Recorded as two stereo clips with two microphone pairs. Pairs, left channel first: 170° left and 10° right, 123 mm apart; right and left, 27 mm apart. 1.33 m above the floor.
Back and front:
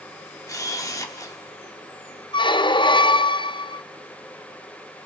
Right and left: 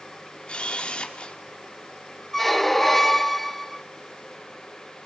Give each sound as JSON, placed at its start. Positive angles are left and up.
{"t": 0.5, "sound": "a camera shutter", "azimuth_deg": -130, "distance_m": 1.7}
{"t": 2.3, "sound": "a squeak", "azimuth_deg": -165, "distance_m": 0.6}